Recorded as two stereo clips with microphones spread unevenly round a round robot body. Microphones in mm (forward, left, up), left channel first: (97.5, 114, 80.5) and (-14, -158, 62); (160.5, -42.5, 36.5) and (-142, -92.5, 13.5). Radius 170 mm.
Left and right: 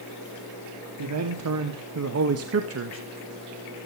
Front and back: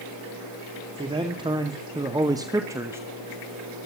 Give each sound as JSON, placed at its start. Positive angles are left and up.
{"t": 1.0, "sound": "a man speaking", "azimuth_deg": -100, "distance_m": 2.0}